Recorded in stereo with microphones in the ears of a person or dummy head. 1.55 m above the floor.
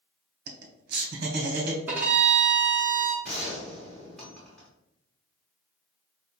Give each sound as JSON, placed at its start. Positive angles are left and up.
{"t": 0.5, "sound": "laughter", "side_deg": -55, "distance_m": 0.8}
{"t": 1.9, "sound": "a violin", "side_deg": -15, "distance_m": 0.7}
{"t": 3.2, "sound": "a gunshot", "side_deg": 0, "distance_m": 1.4}